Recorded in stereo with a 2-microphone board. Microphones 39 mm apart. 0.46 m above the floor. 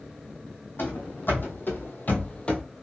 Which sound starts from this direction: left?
Running footsteps, at 0.8 s.